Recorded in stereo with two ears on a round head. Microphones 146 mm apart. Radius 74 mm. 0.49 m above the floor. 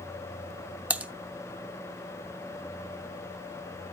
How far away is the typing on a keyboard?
About 0.6 m.